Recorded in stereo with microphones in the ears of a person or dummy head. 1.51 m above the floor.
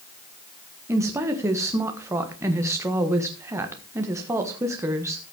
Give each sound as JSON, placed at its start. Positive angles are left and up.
{"t": 0.9, "sound": "a woman speaking", "side_deg": -15, "distance_m": 1.5}